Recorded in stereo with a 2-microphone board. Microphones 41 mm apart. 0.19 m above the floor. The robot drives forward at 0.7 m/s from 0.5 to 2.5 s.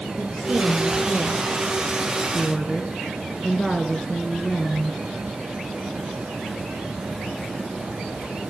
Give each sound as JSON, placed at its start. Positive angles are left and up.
{"t": 0.2, "sound": "a woman speaking", "side_deg": 5, "distance_m": 3.5}